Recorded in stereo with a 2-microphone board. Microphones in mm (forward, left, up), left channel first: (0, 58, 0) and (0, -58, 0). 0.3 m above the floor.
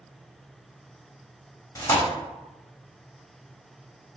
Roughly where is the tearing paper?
Left.